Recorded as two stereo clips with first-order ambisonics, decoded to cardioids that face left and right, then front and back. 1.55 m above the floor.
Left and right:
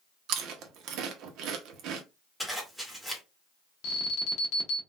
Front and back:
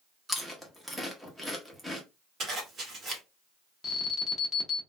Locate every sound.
0.3 s chewing: 90° right, 0.7 m
2.4 s a zipper: 175° left, 1.2 m
3.8 s an alarm: 75° left, 1.0 m